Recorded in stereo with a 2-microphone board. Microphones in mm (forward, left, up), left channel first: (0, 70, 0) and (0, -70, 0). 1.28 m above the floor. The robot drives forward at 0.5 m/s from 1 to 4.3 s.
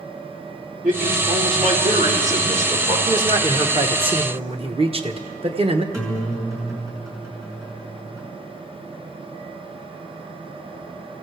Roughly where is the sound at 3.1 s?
Right.